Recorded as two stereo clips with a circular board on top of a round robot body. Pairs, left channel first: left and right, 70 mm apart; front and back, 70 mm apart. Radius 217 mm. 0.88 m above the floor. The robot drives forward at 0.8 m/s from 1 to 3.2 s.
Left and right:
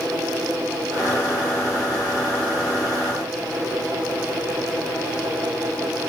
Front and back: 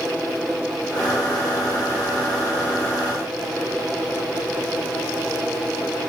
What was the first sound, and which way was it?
Only background noise.